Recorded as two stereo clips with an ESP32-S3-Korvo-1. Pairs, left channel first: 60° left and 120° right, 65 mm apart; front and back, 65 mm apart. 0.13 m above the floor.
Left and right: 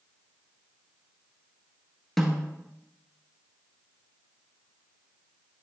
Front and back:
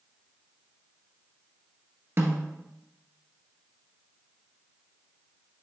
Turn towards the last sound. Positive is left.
turn(degrees=145)